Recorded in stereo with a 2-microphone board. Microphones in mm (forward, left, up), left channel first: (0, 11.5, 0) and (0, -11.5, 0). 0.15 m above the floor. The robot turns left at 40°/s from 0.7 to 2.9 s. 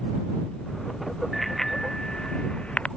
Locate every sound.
1.3 s a bicycle bell: centre (ahead or behind); by 2.9 s 60° left (ahead or behind)